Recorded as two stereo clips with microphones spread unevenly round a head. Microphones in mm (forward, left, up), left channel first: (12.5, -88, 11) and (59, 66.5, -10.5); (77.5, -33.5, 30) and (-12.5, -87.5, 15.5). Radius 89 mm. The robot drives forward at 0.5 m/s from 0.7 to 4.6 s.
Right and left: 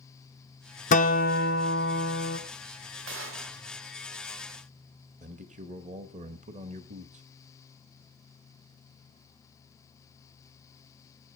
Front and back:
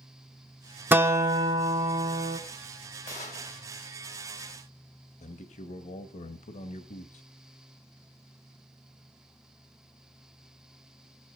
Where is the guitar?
75° right, 0.9 m; by 2.4 s 125° right, 1.1 m.